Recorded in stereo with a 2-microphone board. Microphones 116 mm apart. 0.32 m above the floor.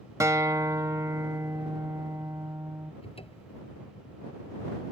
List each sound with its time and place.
0.2 s a guitar: 25° right (ahead or behind)
3.0 s a cupboard door: 55° left (ahead or behind)